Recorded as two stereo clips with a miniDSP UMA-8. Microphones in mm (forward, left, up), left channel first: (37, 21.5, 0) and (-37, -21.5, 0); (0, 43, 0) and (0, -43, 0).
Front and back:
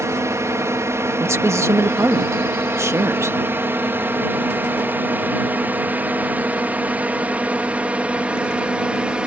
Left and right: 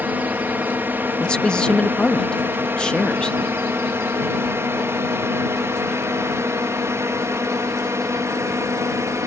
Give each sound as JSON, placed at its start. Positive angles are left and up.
{"t": 0.0, "sound": "a drone", "azimuth_deg": -140}
{"t": 1.2, "sound": "a man speaking", "azimuth_deg": 165}